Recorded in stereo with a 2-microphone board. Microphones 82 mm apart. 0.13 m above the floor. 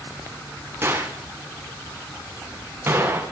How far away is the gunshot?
About 7 m.